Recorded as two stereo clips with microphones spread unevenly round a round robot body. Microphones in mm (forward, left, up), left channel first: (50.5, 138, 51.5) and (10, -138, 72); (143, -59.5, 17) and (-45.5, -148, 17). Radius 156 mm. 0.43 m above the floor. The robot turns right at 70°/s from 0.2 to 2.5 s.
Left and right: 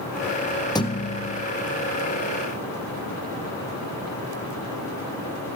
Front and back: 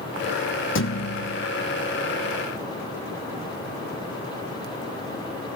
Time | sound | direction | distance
0.8 | a thud | 5° left | 1.7 m